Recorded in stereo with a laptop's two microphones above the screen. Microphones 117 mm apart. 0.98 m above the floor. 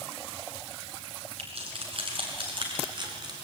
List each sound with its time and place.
1.4 s keys jangling: 55° right (ahead or behind), 7.5 m; by 3.3 s 40° right (ahead or behind), 6 m